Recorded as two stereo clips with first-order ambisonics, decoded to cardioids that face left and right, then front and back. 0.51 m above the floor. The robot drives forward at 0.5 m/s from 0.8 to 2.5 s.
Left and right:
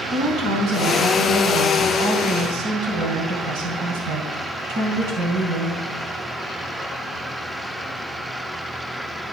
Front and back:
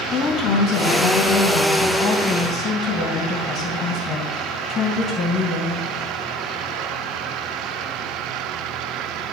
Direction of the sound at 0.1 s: 50° right.